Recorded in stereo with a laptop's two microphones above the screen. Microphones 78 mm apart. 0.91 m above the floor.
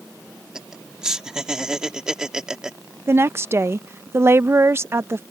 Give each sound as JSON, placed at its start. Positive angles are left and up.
{"t": 0.6, "sound": "laughter", "side_deg": -10}
{"t": 3.1, "sound": "a woman speaking", "side_deg": -35}